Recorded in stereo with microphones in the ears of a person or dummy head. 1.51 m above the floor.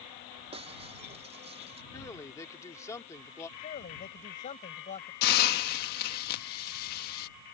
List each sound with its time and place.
0.5 s breaking glass: 25° right (ahead or behind)
1.9 s a man speaking: 15° left (ahead or behind)
3.6 s a man speaking: 40° left (ahead or behind)
5.2 s a hiss: 55° left (ahead or behind)